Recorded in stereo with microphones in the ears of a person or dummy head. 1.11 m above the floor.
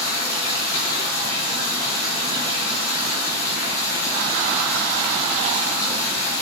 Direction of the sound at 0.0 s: 10° left (ahead or behind).